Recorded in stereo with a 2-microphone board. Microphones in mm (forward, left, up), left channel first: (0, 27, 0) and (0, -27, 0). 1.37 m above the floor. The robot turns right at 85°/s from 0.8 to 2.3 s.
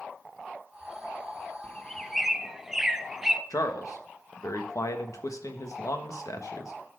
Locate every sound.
1.6 s a bird: 30° left (ahead or behind), 0.6 m; by 3.4 s 10° right (ahead or behind), 0.6 m
3.5 s a man speaking: 80° left, 1.2 m